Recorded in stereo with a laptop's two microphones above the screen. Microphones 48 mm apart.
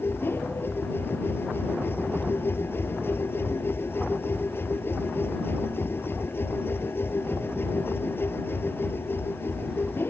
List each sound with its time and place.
0.0 s a machine running: 50° left (ahead or behind)